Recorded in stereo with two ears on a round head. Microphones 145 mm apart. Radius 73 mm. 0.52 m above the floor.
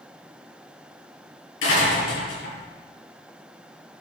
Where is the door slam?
85° left, 9 m.